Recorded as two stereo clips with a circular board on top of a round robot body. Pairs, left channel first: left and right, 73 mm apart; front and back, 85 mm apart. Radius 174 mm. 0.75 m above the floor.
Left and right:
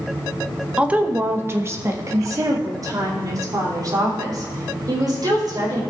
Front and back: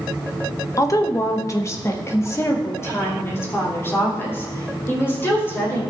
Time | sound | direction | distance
0.8 | a woman speaking | 20° right | 1.1 m